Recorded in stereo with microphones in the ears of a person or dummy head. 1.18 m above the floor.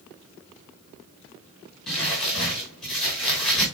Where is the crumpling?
10° left (ahead or behind), 5 m.